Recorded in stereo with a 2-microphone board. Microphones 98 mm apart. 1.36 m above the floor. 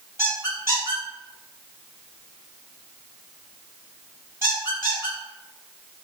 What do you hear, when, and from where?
0.2 s a squeak: 25° right (ahead or behind), 1.4 m